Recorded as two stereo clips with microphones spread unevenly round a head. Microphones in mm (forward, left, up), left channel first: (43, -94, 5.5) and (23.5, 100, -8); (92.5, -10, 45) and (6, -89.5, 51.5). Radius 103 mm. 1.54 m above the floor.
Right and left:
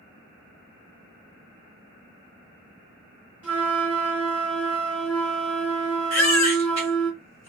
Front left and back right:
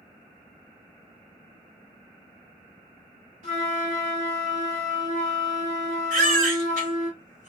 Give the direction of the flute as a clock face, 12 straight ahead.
6 o'clock.